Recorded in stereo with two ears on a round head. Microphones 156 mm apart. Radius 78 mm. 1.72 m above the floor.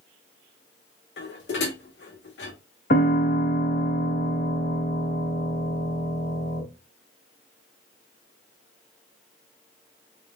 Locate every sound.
1.2 s dishes clattering: 70° left (ahead or behind), 2.5 m
2.9 s a piano: 55° left (ahead or behind), 4 m